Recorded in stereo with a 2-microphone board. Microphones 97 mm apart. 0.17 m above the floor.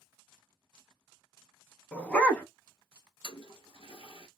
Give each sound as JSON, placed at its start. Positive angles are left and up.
{"t": 1.9, "sound": "a dog barking", "side_deg": 10, "distance_m": 0.6}
{"t": 3.2, "sound": "a toilet flushing", "side_deg": 70, "distance_m": 0.8}